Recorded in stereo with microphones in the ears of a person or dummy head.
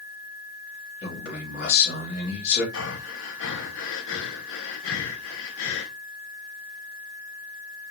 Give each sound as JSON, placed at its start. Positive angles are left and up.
{"t": 1.0, "sound": "a man speaking", "side_deg": 55, "distance_m": 3.5}
{"t": 2.7, "sound": "breathing", "side_deg": 65, "distance_m": 1.0}